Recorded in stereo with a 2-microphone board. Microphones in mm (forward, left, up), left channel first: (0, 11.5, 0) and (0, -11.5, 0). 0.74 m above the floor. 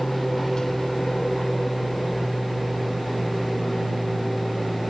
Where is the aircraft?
35° left (ahead or behind); by 4.9 s 15° left (ahead or behind).